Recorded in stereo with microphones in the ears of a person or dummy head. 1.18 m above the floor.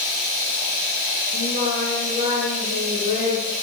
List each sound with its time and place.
0.0 s running water: 35° left (ahead or behind), 10 m
1.3 s singing: 35° left (ahead or behind), 9 m